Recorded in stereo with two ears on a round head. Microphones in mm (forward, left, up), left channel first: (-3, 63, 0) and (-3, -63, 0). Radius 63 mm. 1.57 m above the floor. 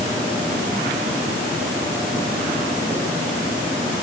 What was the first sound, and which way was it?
Only background noise.